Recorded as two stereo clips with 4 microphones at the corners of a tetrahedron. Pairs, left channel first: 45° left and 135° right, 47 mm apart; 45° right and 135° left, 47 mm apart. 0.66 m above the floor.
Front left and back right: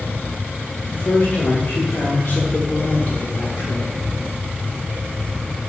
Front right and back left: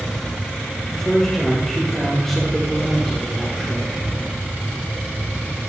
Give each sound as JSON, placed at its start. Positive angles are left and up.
{"t": 0.9, "sound": "a man speaking", "azimuth_deg": 40, "distance_m": 1.6}